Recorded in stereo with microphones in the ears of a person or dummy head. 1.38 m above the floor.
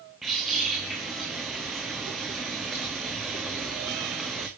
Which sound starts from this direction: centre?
A bird, at 0.2 s.